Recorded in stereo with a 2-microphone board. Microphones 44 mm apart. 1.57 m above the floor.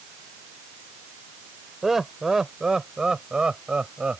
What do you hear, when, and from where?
1.8 s laughter: 10° right (ahead or behind); by 4.2 s 25° right (ahead or behind)